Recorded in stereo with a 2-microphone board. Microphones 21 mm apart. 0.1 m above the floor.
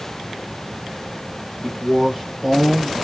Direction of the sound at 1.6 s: 25° left (ahead or behind).